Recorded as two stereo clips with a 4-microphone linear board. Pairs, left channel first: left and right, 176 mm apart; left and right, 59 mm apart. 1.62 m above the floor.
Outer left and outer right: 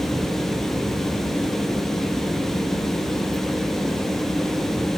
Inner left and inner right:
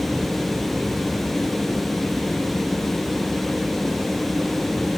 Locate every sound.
Only background noise.